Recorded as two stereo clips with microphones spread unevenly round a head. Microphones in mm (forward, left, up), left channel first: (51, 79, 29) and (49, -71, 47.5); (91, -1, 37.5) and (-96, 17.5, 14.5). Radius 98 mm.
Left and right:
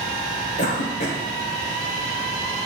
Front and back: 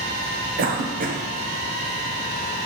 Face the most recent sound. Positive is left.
turn(degrees=130)